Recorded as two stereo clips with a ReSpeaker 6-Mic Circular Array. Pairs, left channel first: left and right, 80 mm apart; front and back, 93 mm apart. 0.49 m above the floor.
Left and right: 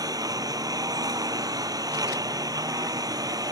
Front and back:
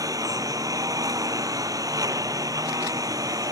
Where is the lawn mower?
130° right.